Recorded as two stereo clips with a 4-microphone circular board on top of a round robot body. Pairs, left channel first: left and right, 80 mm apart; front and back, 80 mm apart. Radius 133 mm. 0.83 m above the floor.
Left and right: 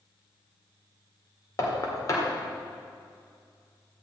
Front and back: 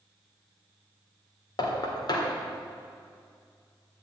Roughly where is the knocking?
Ahead left.